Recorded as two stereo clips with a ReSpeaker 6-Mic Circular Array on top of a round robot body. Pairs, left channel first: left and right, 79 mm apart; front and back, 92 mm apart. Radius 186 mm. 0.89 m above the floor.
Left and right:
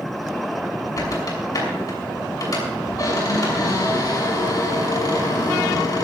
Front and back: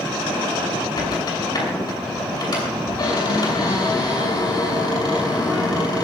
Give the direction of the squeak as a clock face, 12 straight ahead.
11 o'clock.